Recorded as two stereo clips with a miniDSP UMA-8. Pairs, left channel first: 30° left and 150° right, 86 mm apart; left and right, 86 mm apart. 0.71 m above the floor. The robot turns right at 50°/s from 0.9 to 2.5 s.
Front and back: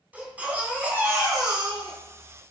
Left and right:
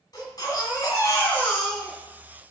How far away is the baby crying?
About 3 m.